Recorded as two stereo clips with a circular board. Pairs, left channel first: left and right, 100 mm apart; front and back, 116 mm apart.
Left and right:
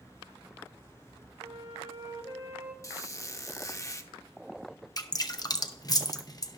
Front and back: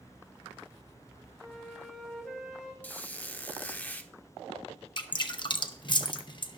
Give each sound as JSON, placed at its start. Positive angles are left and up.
{"t": 1.4, "sound": "a flute", "azimuth_deg": -85, "distance_m": 1.6}
{"t": 2.8, "sound": "a squeak", "azimuth_deg": 65, "distance_m": 0.6}
{"t": 5.0, "sound": "dripping", "azimuth_deg": 40, "distance_m": 0.7}